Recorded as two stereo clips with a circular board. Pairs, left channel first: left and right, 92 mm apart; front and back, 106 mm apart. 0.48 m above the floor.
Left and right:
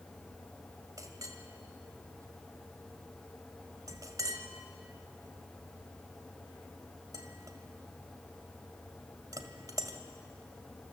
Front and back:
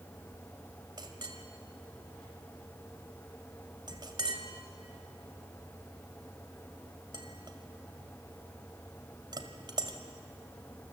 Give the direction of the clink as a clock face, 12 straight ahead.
5 o'clock.